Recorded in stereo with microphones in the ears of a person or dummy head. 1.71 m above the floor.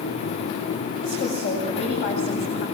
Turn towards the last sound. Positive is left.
turn(degrees=40)  # may be behind; listen again after turning